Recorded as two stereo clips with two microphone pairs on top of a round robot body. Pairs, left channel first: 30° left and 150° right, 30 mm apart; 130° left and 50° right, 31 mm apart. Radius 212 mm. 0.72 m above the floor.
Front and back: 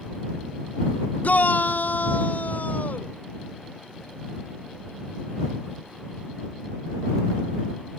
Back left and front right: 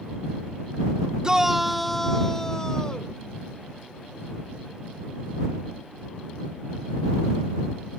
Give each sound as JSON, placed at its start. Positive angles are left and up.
{"t": 1.2, "sound": "a shout", "azimuth_deg": 10}